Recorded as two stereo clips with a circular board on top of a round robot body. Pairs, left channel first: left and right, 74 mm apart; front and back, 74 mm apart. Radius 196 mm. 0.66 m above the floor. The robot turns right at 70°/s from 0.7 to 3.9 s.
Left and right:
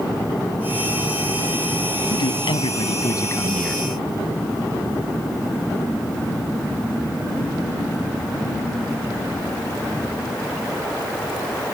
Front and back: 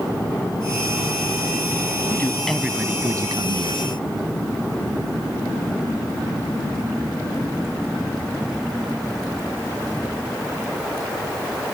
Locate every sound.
2.1 s a man speaking: 60° left; by 3.8 s straight behind